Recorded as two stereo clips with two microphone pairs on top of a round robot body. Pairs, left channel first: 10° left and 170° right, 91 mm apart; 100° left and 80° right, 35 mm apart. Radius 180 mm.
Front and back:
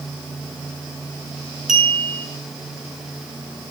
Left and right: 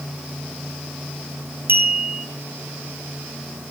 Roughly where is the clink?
Right.